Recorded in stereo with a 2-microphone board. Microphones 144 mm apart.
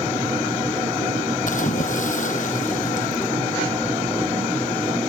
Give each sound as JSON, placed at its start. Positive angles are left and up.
{"t": 1.5, "sound": "a splash", "side_deg": 60}